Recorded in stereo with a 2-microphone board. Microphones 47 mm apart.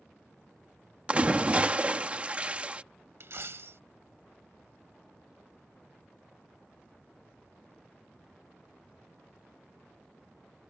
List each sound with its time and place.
1.1 s a splash: 25° right (ahead or behind)
3.2 s a dropped coin: 60° right (ahead or behind)